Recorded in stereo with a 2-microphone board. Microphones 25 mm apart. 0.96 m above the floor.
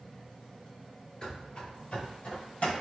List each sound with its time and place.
1.2 s running footsteps: 30° left (ahead or behind), 1.0 m; by 2.7 s 60° left (ahead or behind), 1.9 m